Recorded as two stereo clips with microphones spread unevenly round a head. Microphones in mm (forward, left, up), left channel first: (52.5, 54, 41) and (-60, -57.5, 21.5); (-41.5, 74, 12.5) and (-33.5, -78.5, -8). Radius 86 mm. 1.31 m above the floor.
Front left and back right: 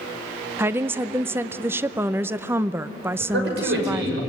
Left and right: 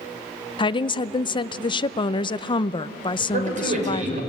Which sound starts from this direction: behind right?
A man speaking, at 3.2 s.